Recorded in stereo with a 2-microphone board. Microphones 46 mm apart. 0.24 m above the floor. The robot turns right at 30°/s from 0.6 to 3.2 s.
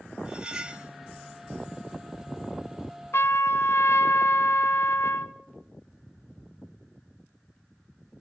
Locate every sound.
0.2 s cutlery clinking: 20° right (ahead or behind), 0.6 m; by 0.9 s 25° right (ahead or behind), 0.6 m
3.1 s a trumpet: 70° left (ahead or behind), 0.6 m